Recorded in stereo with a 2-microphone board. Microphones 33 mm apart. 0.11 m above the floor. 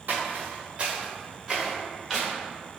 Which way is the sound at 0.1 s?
65° right (ahead or behind).